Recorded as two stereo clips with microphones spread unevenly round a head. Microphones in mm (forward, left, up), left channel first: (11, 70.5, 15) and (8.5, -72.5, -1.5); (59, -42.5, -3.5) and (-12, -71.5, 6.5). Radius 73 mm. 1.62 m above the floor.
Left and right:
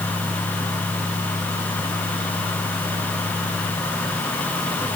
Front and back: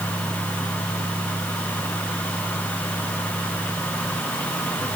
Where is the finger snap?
No finger snap in this recording.